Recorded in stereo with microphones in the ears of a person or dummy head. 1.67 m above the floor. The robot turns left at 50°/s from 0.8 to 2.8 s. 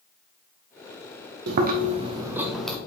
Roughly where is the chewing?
Behind right.